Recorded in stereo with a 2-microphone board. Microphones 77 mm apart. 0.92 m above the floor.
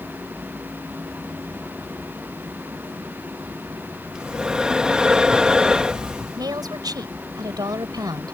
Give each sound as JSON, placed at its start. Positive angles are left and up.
{"t": 4.1, "sound": "breathing", "side_deg": -10}
{"t": 6.4, "sound": "a woman speaking", "side_deg": -60}